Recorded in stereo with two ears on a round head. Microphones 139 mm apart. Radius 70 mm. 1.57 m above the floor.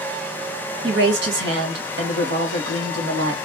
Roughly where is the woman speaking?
Right.